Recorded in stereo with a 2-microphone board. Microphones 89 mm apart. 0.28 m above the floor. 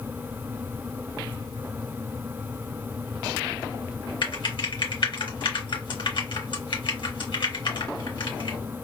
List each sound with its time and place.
4.2 s typing on a keyboard: 65° left (ahead or behind), 2.5 m